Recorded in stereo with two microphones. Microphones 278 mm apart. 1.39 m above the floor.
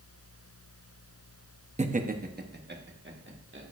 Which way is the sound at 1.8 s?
25° right (ahead or behind).